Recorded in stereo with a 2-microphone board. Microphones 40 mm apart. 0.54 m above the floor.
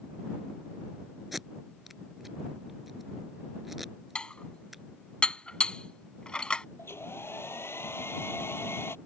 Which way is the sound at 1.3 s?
5° right (ahead or behind).